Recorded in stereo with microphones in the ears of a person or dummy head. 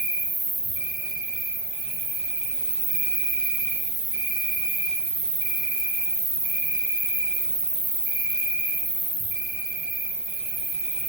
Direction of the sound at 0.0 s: 40° right (ahead or behind).